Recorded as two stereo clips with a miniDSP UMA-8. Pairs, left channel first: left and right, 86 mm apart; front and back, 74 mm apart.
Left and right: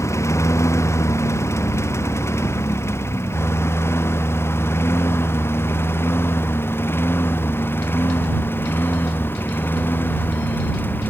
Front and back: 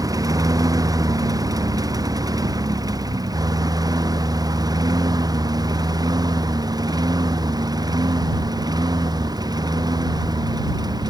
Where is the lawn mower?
145° left; by 11.1 s 155° left.